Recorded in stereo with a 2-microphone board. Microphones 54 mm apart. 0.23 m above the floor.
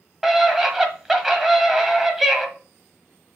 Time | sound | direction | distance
0.2 | a scream | 5° right (ahead or behind) | 1.3 m